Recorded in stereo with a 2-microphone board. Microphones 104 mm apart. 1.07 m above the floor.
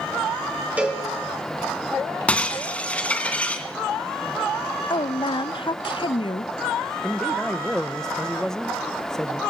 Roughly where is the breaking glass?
Centre.